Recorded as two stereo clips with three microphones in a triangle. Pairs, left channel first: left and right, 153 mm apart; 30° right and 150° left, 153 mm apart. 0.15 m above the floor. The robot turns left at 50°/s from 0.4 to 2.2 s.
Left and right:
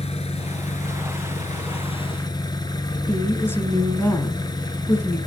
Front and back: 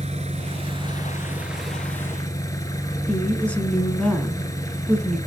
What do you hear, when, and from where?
0.0 s an engine running: 125° left, 1.2 m; by 5.3 s 35° left, 1.2 m
3.1 s a woman speaking: 40° left, 1.2 m